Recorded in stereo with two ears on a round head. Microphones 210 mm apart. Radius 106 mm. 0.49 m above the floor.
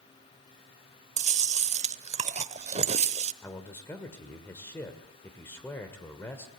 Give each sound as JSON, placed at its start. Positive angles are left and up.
{"t": 1.2, "sound": "chewing", "side_deg": -30, "distance_m": 0.7}
{"t": 3.4, "sound": "a man speaking", "side_deg": 10, "distance_m": 1.8}